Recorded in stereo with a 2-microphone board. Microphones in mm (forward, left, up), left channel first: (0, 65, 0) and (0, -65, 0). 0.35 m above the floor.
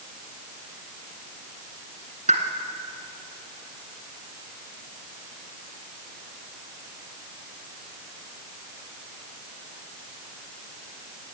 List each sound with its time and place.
2.3 s a pop: 75° right (ahead or behind), 1.7 m